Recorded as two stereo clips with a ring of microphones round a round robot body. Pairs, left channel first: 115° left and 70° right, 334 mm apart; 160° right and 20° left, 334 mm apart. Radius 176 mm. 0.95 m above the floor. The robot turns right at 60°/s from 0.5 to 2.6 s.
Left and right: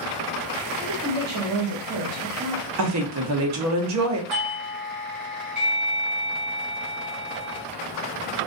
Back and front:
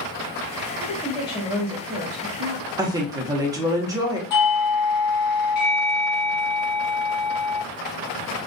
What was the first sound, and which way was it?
A woman speaking, 110° right.